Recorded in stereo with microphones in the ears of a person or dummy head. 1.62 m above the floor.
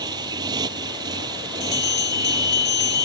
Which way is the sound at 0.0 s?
25° right (ahead or behind).